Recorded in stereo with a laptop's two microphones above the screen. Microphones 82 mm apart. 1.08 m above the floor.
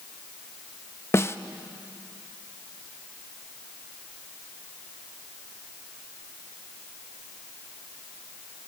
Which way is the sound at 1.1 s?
35° left (ahead or behind).